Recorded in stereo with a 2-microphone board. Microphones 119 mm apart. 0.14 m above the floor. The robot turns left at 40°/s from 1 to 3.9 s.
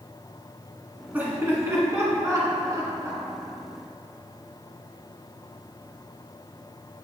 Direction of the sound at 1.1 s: 15° right (ahead or behind).